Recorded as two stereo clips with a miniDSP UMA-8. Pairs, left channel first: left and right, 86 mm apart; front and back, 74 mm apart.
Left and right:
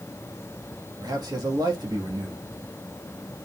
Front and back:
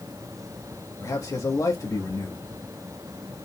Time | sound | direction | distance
1.0 | a man speaking | 45° right | 1.9 m